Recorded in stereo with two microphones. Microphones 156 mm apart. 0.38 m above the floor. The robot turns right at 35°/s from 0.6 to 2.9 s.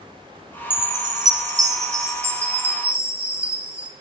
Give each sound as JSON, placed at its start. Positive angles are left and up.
{"t": 0.7, "sound": "a chime", "side_deg": -25, "distance_m": 1.3}